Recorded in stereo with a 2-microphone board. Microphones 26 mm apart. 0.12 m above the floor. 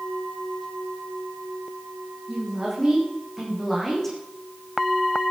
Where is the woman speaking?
15° right (ahead or behind), 8.5 m; by 4.2 s 5° left (ahead or behind), 7.5 m.